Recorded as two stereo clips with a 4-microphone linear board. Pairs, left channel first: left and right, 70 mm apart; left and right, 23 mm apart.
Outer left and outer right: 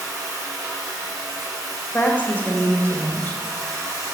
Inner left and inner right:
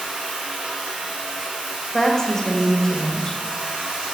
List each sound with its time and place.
0.0 s running water: 55° right (ahead or behind), 4 m
1.9 s a woman speaking: 25° left (ahead or behind), 1.6 m